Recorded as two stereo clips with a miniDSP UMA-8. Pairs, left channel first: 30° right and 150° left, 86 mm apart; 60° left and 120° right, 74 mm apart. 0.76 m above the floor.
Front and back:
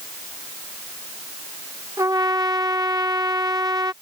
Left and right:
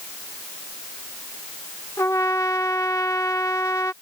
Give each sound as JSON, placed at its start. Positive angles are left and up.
{"t": 2.0, "sound": "a trumpet", "azimuth_deg": 105}